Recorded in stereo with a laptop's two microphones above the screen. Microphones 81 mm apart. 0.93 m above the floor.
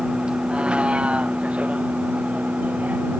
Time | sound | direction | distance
0.0 | a vehicle | 10° right (ahead or behind) | ?